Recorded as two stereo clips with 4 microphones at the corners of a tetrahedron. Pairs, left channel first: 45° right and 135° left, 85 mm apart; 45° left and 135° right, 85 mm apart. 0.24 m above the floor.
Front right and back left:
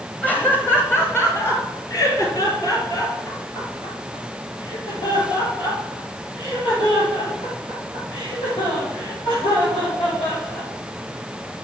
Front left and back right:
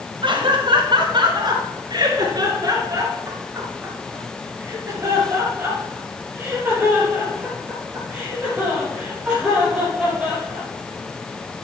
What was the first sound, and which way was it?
Laughter, 115° right.